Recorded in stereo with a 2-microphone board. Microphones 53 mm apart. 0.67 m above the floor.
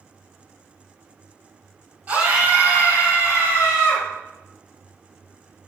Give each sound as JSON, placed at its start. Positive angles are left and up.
{"t": 2.1, "sound": "a scream", "side_deg": -30, "distance_m": 3.0}